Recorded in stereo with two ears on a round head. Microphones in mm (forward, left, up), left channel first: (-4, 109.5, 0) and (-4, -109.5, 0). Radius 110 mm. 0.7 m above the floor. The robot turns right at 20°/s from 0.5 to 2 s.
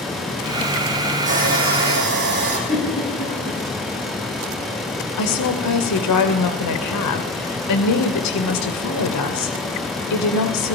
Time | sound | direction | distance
1.3 | sawing | 30° right (ahead or behind) | 4.5 m
2.7 | a giggle | 30° left (ahead or behind) | 9 m
5.2 | a woman speaking | 75° left (ahead or behind) | 2.5 m